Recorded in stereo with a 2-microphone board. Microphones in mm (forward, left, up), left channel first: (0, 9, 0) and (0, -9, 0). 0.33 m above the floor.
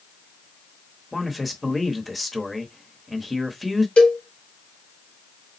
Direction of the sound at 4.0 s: 75° left (ahead or behind).